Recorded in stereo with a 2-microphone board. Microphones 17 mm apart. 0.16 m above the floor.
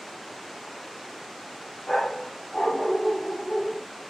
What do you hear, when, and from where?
1.9 s a dog barking: 60° left (ahead or behind), 7.5 m; by 3.8 s 65° left (ahead or behind), 9 m